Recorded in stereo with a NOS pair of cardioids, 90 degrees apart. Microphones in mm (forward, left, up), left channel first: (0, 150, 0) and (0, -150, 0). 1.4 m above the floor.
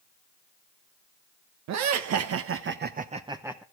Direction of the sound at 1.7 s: 70° right.